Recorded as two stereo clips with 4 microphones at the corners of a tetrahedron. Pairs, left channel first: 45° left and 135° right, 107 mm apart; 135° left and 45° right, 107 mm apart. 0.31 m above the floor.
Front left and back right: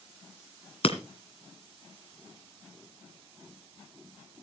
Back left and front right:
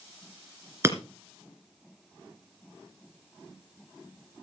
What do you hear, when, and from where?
0.8 s breaking glass: 20° left, 2.5 m